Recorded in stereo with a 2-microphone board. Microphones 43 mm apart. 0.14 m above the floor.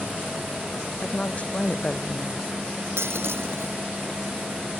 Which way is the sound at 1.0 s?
30° left (ahead or behind).